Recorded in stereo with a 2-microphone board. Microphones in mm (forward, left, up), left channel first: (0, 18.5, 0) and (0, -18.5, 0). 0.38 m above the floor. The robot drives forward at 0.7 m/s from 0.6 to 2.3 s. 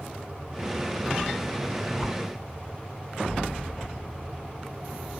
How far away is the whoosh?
About 0.8 m.